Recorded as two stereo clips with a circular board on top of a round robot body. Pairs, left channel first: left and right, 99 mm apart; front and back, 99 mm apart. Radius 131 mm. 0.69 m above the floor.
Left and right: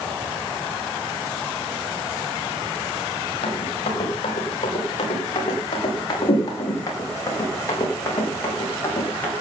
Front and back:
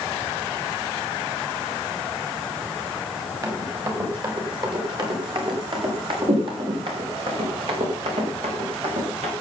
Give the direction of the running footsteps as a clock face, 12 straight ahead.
8 o'clock.